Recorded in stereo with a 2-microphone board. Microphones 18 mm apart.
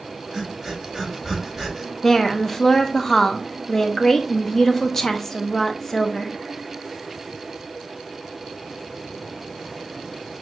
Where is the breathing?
20° right (ahead or behind), 3.5 m.